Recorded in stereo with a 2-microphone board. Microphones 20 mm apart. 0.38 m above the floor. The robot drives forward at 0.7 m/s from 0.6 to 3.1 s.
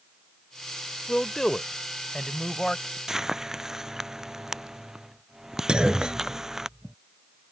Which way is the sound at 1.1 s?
35° left (ahead or behind).